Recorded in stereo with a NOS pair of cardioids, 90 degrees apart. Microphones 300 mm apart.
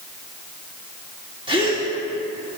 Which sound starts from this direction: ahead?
A gasp, at 1.5 s.